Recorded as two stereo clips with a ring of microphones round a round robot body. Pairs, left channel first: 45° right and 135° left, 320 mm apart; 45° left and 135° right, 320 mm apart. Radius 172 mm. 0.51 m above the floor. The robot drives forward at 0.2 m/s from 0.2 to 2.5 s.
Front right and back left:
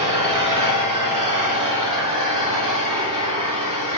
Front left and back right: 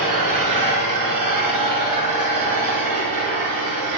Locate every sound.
0.0 s an engine running: 150° right, 3.5 m; by 4.0 s 155° right, 4 m